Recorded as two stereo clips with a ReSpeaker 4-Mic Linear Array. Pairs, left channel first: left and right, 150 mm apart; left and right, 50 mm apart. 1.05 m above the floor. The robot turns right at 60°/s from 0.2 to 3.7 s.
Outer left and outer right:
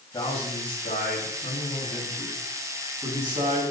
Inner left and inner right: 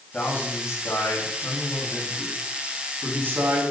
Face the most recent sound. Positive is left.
turn(degrees=-120)